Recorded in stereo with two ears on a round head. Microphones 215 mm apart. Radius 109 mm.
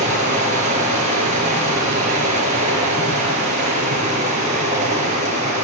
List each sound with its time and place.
0.0 s running water: 30° right (ahead or behind), 6 m